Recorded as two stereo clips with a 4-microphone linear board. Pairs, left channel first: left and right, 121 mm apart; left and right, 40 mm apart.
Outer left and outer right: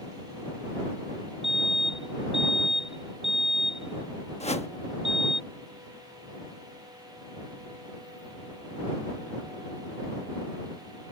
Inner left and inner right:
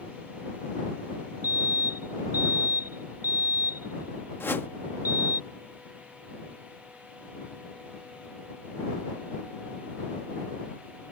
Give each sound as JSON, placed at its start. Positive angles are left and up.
{"t": 1.4, "sound": "a fire alarm", "side_deg": -60}
{"t": 4.4, "sound": "a whoosh", "side_deg": 65}